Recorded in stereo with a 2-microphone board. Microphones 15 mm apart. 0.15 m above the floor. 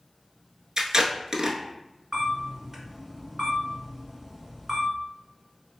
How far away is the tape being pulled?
About 0.5 m.